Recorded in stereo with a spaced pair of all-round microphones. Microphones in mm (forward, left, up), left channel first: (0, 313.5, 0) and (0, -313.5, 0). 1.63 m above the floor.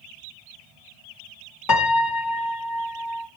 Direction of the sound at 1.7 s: 35° left (ahead or behind).